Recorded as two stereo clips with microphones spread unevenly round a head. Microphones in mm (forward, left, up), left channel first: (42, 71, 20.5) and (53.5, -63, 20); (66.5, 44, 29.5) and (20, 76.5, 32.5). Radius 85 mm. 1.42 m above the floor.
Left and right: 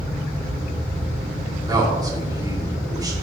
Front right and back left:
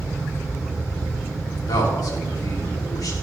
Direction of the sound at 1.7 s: 20° right.